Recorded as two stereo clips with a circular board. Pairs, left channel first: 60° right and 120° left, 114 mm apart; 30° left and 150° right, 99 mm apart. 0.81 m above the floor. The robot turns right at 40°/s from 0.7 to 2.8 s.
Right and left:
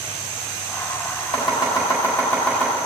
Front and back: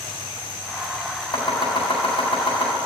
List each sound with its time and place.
1.3 s chopping: 25° right, 3.5 m; by 2.8 s 35° left, 3.5 m